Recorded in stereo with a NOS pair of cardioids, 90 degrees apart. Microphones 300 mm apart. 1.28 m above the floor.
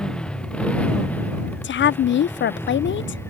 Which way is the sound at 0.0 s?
5° left.